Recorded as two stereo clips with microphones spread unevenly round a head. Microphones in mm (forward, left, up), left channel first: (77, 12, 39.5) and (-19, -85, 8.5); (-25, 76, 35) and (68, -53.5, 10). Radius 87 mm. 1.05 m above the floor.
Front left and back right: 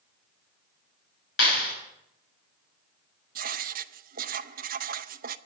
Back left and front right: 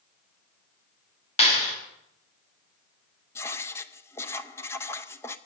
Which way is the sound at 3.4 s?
155° right.